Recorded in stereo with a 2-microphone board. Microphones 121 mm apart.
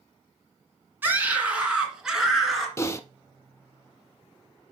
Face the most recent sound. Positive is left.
turn(degrees=25)  # may be behind; listen again after turning